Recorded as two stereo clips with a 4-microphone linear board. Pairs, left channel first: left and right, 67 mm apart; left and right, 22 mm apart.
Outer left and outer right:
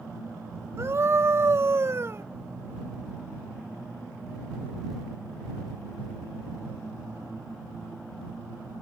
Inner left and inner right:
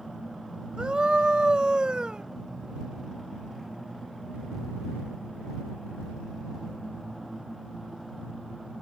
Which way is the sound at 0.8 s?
45° right (ahead or behind).